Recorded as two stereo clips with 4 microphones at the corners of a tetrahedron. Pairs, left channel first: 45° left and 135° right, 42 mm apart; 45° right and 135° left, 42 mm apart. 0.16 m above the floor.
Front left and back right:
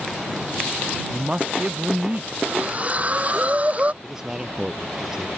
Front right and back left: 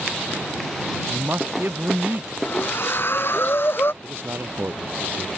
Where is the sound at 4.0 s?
150° left.